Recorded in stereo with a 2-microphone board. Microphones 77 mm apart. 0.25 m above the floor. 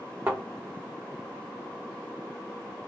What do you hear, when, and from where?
0.3 s a thud: 25° right (ahead or behind), 1.2 m